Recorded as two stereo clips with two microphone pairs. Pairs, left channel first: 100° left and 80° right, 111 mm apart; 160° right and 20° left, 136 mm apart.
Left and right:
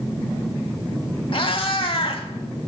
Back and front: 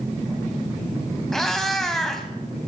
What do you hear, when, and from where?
1.3 s a cat meowing: 120° left, 0.7 m